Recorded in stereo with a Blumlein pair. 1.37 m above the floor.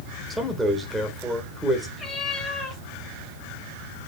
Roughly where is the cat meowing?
Ahead.